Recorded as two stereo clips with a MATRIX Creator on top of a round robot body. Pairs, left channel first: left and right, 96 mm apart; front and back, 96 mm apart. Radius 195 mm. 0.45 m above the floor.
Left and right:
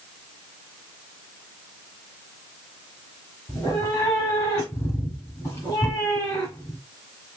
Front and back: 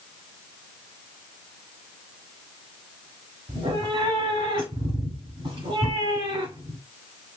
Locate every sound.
3.5 s a cat meowing: 155° left, 2 m